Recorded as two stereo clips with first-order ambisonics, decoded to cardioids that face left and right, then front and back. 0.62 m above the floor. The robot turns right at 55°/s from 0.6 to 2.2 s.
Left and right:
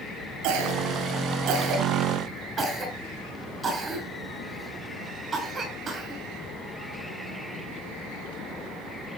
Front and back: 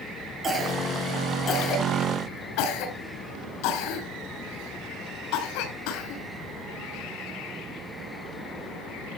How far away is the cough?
About 6.5 m.